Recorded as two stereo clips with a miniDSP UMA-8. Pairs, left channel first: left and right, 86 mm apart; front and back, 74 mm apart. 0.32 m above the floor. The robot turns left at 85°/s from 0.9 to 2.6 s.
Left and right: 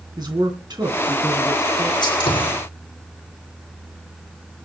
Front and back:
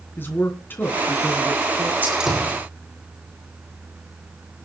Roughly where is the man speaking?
Ahead right.